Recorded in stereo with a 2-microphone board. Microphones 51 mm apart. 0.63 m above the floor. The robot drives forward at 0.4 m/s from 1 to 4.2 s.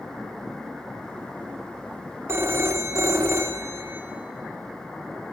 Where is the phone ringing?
60° right (ahead or behind), 0.6 m; by 4.0 s 50° right (ahead or behind), 0.7 m.